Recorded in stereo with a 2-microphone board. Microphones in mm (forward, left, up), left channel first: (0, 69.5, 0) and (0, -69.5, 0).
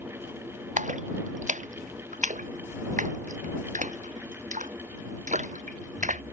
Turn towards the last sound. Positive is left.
turn(degrees=-60)  # may be behind; listen again after turning